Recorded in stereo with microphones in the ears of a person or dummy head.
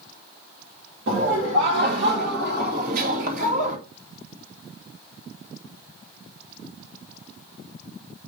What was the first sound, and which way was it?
Laughter, 75° right (ahead or behind).